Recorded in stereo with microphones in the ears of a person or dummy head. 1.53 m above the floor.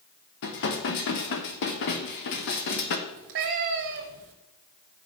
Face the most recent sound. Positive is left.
turn(degrees=-45)  # may be behind; listen again after turning